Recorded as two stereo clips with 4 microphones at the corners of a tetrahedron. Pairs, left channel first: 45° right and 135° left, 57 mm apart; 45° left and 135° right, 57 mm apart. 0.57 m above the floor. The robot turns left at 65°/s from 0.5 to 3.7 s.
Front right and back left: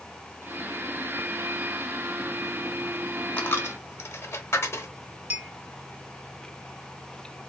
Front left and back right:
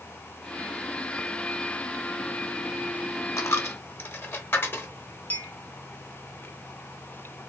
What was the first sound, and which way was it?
A dropped coin, 20° left.